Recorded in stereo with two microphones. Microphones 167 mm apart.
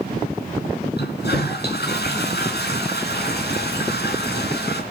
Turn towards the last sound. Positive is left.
turn(degrees=80)